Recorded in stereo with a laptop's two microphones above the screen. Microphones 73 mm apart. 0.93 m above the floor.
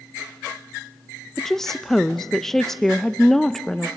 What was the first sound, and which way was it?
A woman speaking, 5° left (ahead or behind).